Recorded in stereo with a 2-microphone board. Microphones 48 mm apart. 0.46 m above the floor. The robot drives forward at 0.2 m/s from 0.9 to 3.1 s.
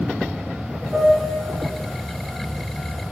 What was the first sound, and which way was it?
A piano, 5° right (ahead or behind).